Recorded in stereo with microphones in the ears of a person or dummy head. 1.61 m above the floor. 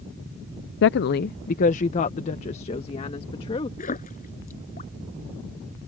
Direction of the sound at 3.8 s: 40° left (ahead or behind).